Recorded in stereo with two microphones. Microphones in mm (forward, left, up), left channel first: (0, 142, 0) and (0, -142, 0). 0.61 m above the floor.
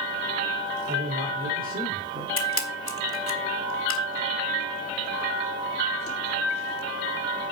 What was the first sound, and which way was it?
A man speaking, 30° right (ahead or behind).